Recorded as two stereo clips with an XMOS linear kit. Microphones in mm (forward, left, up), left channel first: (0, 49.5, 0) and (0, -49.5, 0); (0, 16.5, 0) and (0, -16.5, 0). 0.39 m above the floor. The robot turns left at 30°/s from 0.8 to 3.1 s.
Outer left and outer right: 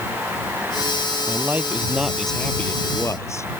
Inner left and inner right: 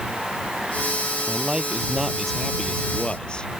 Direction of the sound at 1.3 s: 155° right.